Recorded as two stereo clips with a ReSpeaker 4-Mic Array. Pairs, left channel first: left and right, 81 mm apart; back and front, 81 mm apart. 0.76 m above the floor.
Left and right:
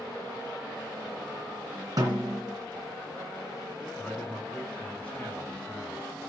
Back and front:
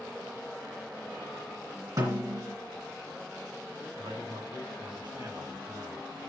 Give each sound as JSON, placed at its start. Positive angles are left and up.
{"t": 2.0, "sound": "a snare drum", "azimuth_deg": -45, "distance_m": 2.5}
{"t": 4.0, "sound": "a man speaking", "azimuth_deg": 15, "distance_m": 4.5}